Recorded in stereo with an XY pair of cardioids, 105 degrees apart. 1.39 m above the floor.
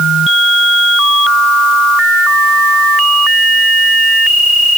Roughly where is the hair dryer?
I don't hear a hair dryer.